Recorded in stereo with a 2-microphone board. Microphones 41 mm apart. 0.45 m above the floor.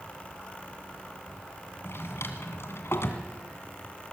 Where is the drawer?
75° left (ahead or behind), 2 m.